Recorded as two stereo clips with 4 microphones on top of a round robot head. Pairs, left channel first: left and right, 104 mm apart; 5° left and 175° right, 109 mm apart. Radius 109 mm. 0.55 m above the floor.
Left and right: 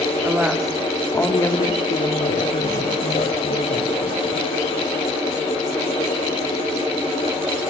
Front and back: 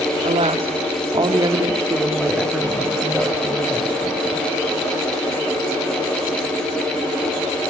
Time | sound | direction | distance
0.2 | a woman speaking | 165° right | 2 m